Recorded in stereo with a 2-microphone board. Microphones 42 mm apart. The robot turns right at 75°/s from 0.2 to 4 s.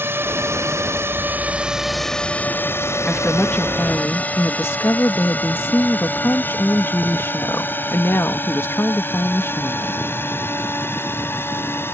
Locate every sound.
0.0 s a drone: 55° right (ahead or behind); by 11.9 s 60° left (ahead or behind)
3.1 s a woman speaking: straight ahead; by 10.1 s 70° left